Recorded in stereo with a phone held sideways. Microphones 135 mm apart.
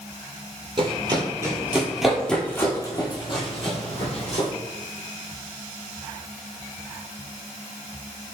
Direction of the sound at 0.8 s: 40° right (ahead or behind).